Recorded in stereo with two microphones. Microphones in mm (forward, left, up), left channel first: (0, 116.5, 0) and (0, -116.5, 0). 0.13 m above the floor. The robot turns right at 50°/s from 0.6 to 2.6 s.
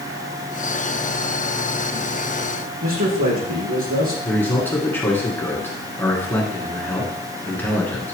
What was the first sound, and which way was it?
A man speaking, 75° right (ahead or behind).